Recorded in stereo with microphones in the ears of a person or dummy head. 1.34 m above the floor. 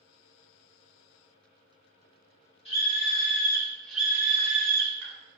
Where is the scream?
30° left (ahead or behind), 1.1 m; by 5.1 s 70° right (ahead or behind), 0.6 m.